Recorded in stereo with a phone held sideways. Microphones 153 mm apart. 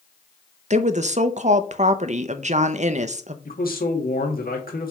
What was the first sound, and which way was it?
A woman speaking, 50° right (ahead or behind).